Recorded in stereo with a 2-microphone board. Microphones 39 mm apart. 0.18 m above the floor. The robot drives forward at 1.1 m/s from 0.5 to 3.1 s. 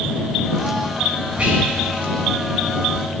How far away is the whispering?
About 1.5 m.